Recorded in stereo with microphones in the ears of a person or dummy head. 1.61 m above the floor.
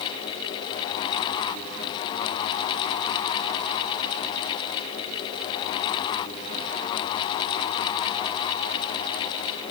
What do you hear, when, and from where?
Only background noise.